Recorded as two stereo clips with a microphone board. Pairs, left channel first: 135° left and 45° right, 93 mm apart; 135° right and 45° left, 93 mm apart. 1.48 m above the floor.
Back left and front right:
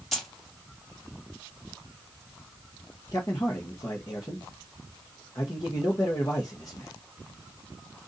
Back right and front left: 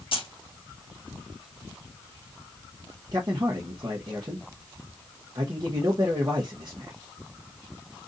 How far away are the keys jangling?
About 1.7 m.